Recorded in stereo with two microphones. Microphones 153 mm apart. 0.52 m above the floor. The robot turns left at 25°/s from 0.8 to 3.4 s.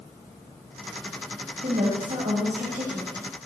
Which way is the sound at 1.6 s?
100° right.